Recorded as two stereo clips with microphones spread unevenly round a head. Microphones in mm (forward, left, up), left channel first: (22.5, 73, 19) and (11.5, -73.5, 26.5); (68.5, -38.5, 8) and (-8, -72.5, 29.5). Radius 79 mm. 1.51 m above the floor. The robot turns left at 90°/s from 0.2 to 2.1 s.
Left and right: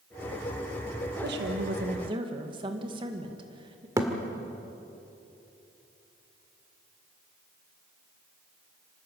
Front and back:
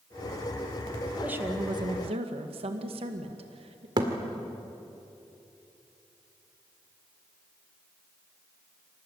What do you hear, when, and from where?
1.2 s a woman speaking: 75° right, 2 m; by 3.9 s 155° right, 2 m
4.0 s a thud: 165° right, 1.9 m